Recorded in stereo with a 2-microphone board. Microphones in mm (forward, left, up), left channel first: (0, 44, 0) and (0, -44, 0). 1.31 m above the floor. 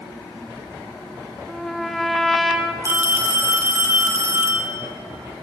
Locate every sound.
1.5 s a trumpet: centre (ahead or behind), 0.6 m
2.8 s a phone ringing: 30° right (ahead or behind), 1.1 m